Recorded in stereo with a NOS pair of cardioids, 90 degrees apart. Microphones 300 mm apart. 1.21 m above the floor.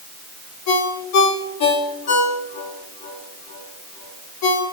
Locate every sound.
0.7 s a ringtone: 65° left, 3 m